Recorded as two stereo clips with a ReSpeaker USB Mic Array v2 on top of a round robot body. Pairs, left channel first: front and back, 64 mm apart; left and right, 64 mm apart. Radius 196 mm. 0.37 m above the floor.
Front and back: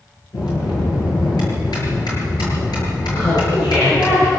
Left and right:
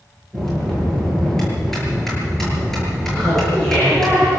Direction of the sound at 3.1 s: 10° left.